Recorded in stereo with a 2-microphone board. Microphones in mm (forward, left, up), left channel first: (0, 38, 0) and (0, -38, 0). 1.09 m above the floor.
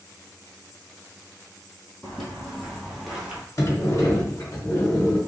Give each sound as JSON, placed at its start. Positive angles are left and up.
{"t": 2.0, "sound": "footsteps", "side_deg": 10, "distance_m": 1.4}
{"t": 3.6, "sound": "a sliding door", "side_deg": 45, "distance_m": 1.4}